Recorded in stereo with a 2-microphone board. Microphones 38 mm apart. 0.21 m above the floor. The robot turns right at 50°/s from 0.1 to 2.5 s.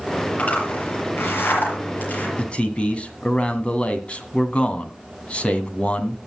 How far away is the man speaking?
About 1.9 m.